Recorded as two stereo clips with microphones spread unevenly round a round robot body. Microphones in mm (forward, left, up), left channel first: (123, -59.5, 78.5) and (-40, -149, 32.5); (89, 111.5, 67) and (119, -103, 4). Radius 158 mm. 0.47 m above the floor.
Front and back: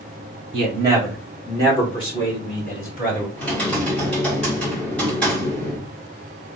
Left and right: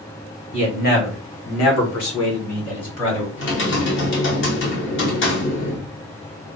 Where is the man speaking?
175° left, 1.2 m; by 3.3 s 85° left, 2.5 m.